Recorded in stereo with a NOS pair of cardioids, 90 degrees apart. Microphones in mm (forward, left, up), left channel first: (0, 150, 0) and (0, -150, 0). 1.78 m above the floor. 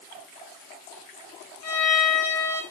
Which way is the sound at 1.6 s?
60° left.